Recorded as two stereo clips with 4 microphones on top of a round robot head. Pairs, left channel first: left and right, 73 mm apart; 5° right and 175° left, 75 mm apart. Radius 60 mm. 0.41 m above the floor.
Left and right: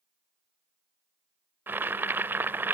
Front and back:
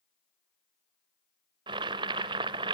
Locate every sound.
1.7 s boiling: 155° right, 0.6 m